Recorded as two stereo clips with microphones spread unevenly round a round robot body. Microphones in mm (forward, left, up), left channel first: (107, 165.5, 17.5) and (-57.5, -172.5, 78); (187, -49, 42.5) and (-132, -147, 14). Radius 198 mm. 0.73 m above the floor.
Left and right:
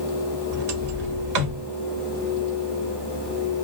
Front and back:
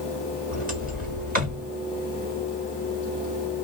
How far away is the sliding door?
About 1.2 m.